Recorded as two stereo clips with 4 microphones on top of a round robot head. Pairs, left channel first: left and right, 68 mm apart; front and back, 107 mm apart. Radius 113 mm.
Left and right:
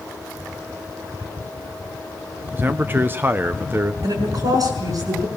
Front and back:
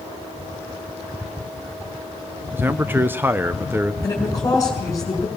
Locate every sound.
2.5 s a man speaking: 120° right, 0.8 m
4.0 s a woman speaking: 65° right, 5 m